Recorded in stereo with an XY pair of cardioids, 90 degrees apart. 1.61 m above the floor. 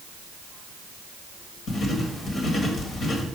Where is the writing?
60° left, 1.6 m.